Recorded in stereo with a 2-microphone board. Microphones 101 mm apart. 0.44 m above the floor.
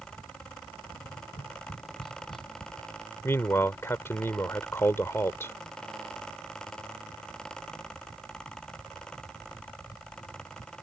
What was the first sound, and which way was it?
Tapping, 60° left (ahead or behind).